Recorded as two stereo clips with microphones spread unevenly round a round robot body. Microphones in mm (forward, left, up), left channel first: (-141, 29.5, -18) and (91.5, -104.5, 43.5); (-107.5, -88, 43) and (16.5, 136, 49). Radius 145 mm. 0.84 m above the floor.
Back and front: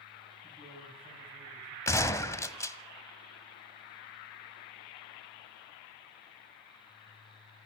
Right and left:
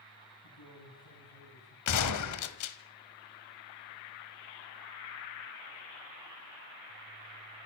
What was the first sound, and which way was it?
A man speaking, 120° right.